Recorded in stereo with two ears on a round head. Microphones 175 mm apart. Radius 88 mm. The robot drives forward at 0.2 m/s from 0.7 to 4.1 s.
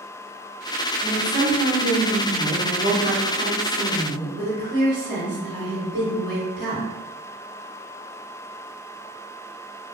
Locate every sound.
1.0 s a woman speaking: 35° right (ahead or behind), 1.3 m; by 6.9 s 25° right (ahead or behind), 1.7 m